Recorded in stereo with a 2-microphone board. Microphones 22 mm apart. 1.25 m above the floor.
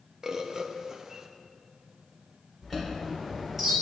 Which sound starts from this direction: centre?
A chime, at 2.6 s.